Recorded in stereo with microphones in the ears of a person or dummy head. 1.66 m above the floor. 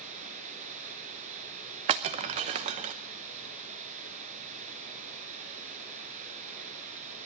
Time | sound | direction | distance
0.0 | running water | 40° right (ahead or behind) | 5.5 m
1.9 | breaking glass | 25° right (ahead or behind) | 0.9 m